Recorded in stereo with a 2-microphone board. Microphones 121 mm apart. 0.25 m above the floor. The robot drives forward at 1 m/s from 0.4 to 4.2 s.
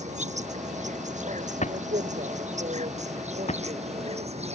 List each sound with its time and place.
0.0 s an insect: 75° right (ahead or behind); by 4.5 s 65° right (ahead or behind)
1.6 s a drawer: 75° left (ahead or behind); by 3.6 s 70° left (ahead or behind)